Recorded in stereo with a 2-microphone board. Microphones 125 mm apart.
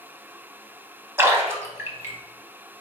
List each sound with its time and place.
1.2 s a splash: 20° right (ahead or behind), 0.8 m